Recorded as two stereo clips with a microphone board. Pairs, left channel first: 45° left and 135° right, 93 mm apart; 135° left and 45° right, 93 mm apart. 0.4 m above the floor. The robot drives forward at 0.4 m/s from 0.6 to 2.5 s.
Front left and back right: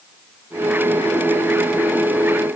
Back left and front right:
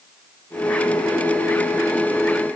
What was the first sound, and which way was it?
Only background noise.